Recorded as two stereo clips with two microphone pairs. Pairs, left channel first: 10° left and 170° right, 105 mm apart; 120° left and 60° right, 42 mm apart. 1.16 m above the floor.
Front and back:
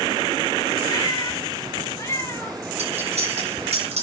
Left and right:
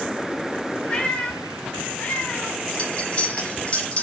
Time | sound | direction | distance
0.9 | a cat meowing | 60° left | 2 m
2.8 | cutlery clinking | straight behind | 5.5 m